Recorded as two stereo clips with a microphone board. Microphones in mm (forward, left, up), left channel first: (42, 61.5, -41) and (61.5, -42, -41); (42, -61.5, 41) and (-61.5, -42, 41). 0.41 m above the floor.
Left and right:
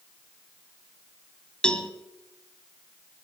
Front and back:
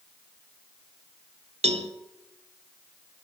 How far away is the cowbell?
About 0.8 m.